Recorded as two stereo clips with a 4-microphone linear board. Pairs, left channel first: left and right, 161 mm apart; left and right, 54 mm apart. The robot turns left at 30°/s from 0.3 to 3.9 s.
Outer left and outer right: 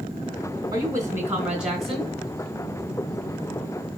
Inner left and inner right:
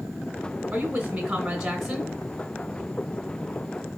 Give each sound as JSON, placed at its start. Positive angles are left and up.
{"t": 0.7, "sound": "a woman speaking", "azimuth_deg": -145, "distance_m": 2.5}